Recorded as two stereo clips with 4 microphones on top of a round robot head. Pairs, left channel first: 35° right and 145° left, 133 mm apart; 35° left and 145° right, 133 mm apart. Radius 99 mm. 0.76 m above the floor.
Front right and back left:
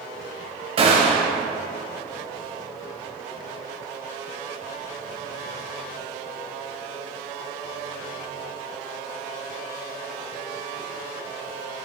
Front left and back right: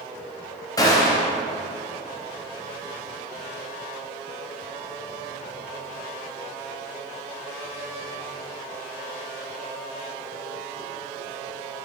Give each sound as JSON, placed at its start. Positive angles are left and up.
{"t": 0.8, "sound": "a gunshot", "azimuth_deg": 100, "distance_m": 0.6}